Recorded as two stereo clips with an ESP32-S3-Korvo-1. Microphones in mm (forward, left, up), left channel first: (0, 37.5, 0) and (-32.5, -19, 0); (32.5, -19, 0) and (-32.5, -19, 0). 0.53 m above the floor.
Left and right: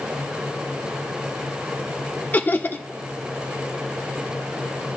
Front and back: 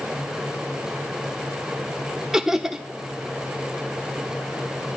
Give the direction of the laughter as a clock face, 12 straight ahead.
9 o'clock.